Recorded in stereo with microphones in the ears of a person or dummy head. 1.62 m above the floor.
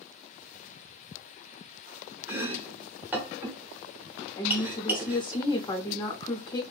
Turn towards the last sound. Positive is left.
turn(degrees=25)  # may be behind; listen again after turning